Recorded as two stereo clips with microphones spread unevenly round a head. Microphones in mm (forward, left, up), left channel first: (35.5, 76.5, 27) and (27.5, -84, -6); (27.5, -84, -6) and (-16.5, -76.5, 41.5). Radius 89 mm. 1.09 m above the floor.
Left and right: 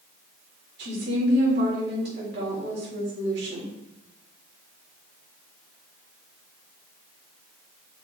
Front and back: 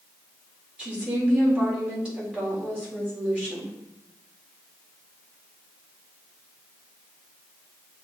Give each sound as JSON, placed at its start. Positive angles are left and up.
{"t": 0.8, "sound": "a woman speaking", "azimuth_deg": -115, "distance_m": 4.0}